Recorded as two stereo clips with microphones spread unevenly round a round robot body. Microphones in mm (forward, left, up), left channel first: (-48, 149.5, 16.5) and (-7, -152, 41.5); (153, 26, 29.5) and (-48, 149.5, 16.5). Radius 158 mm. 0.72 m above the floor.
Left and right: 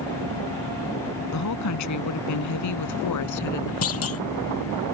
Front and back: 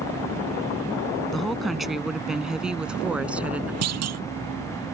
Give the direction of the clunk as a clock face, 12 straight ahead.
7 o'clock.